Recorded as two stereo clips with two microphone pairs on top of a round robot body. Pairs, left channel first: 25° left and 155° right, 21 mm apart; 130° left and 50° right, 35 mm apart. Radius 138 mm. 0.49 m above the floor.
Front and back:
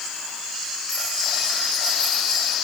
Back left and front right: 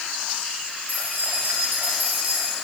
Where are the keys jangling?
30° right, 7 m; by 2.5 s 20° right, 6 m.